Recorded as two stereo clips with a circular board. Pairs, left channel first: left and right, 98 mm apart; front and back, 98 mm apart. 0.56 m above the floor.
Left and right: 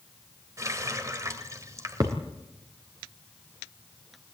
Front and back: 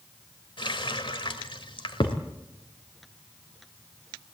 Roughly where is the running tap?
Ahead right.